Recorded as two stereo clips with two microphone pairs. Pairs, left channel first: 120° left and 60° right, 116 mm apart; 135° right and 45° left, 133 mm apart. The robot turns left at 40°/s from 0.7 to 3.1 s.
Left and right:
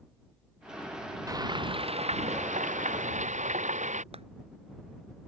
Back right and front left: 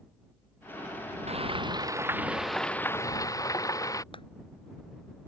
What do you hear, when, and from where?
1.3 s frying: 5° left; by 4.0 s 70° right
4.1 s a clap: 90° right